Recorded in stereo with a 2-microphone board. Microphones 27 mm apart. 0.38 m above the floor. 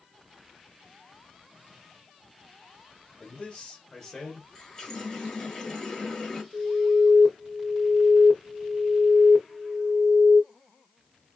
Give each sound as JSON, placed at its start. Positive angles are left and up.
{"t": 3.2, "sound": "a man speaking", "side_deg": 45, "distance_m": 1.3}
{"t": 4.5, "sound": "a running tap", "side_deg": 25, "distance_m": 1.1}
{"t": 6.5, "sound": "an alarm", "side_deg": 35, "distance_m": 0.8}